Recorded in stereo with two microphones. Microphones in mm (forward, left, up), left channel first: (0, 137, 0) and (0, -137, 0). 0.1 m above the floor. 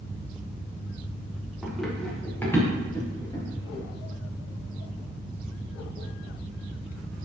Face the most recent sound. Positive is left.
turn(degrees=15)  # may be behind; listen again after turning